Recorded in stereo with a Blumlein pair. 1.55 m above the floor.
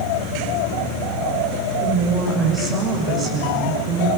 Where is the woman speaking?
20° right, 6.5 m.